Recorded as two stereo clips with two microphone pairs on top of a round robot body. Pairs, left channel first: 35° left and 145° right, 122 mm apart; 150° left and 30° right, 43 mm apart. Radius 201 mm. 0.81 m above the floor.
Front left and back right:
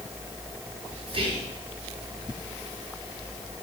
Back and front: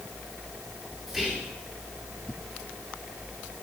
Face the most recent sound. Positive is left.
turn(degrees=-120)